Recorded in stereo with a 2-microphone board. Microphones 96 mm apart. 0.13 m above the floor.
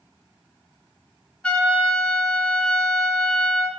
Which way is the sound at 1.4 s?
10° left (ahead or behind).